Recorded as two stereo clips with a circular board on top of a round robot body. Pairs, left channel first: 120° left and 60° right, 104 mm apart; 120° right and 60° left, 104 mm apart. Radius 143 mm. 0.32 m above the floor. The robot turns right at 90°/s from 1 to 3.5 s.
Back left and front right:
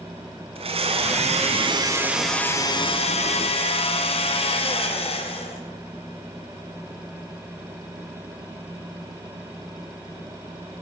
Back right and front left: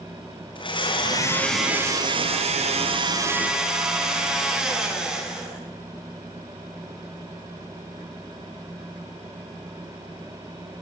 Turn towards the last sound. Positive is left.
turn(degrees=140)